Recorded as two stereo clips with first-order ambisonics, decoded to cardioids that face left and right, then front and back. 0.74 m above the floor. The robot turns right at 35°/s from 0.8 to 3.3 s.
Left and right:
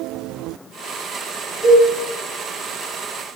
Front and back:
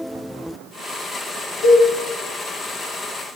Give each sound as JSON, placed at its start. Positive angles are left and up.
{"t": 1.6, "sound": "a cowbell", "azimuth_deg": 20, "distance_m": 0.7}